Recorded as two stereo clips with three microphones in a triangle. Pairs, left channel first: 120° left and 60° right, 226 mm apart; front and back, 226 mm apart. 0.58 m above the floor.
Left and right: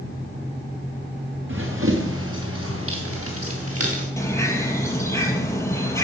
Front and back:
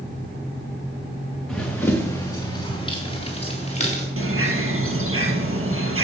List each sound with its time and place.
1.5 s running footsteps: 85° right, 2.5 m; by 4.1 s 60° right, 4.5 m
4.2 s a bird: 165° right, 2.5 m